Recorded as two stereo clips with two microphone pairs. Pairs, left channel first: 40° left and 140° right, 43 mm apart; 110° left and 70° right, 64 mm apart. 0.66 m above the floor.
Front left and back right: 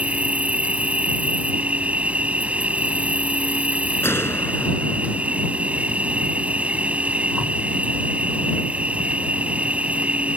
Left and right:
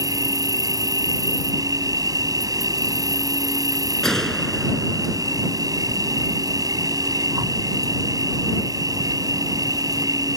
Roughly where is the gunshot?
Ahead left.